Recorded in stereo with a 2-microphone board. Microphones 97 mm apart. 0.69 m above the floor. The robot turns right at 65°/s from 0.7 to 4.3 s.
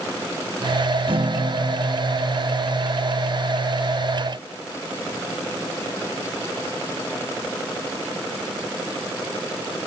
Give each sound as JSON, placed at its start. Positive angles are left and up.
{"t": 1.1, "sound": "a guitar", "azimuth_deg": -65}